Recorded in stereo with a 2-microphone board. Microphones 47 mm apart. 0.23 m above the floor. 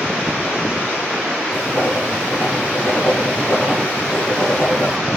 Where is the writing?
40° left (ahead or behind), 6 m.